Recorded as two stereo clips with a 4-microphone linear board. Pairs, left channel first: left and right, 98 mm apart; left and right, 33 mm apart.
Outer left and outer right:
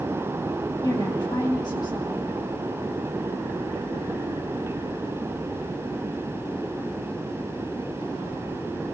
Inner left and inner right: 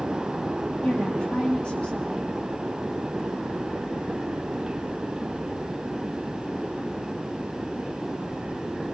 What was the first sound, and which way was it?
A woman speaking, 40° left (ahead or behind).